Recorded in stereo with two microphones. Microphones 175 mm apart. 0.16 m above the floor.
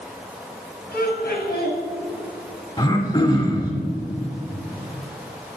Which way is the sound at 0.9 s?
65° left (ahead or behind).